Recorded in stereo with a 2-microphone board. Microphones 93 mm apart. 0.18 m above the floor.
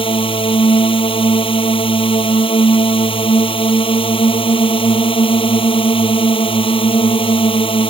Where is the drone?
70° left (ahead or behind).